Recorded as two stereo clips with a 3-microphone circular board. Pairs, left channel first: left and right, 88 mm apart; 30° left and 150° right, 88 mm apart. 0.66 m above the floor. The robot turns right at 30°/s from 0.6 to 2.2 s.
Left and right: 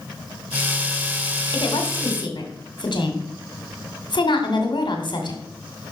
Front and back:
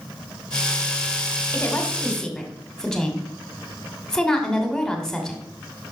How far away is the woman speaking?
About 2 m.